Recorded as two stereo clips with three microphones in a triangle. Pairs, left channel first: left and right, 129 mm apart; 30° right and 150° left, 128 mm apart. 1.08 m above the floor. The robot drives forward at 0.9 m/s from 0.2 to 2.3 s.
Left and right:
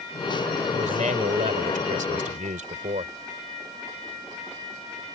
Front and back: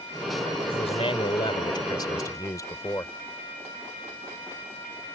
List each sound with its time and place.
0.7 s a man speaking: 70° right; by 3.1 s 95° right